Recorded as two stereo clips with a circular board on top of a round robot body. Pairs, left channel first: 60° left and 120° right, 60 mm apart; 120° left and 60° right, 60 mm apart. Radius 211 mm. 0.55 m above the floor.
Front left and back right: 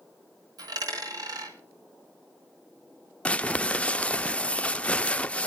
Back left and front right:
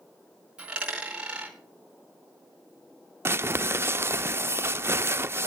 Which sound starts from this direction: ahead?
Crumpling, at 3.2 s.